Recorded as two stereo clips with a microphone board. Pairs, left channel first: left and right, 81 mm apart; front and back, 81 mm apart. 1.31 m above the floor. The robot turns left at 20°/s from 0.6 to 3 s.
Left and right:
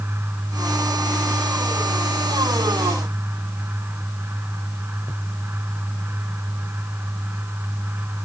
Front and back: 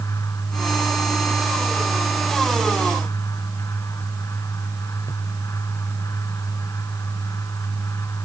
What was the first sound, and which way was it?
Only background noise.